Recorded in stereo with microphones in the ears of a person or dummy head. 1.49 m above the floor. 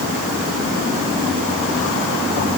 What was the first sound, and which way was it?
Only background noise.